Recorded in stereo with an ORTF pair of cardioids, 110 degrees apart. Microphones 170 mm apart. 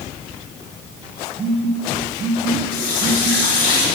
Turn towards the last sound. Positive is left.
turn(degrees=55)